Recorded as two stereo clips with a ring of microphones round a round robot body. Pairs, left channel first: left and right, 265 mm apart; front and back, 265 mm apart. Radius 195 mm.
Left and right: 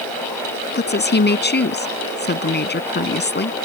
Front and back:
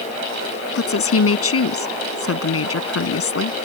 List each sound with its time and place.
0.8 s a woman speaking: 35° left